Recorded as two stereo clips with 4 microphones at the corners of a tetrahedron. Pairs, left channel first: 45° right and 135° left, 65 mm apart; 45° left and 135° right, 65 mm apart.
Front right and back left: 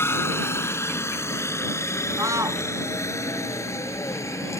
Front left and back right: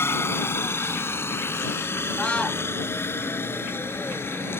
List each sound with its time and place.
0.0 s a helicopter: straight ahead; by 4.6 s 5° right
2.2 s a scream: 115° left